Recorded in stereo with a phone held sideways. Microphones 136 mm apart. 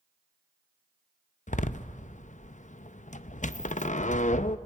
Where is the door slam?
65° left (ahead or behind), 0.5 m.